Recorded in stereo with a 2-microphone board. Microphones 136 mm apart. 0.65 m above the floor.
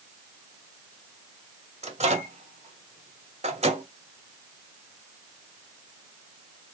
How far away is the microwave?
About 1.5 m.